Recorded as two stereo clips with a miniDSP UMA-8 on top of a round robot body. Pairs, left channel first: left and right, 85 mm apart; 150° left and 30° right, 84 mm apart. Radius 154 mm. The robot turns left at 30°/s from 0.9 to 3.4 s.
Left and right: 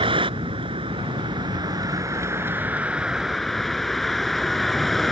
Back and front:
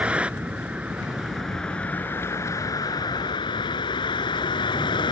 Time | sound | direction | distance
0.0 | a vehicle | 105° right | ?